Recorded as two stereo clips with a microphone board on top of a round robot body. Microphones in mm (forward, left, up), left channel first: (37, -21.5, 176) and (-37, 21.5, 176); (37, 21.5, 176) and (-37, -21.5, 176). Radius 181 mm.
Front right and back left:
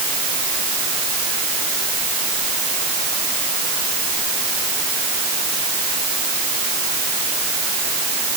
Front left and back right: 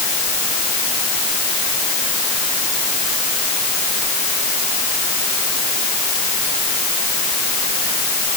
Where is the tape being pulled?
No tape being pulled in this recording.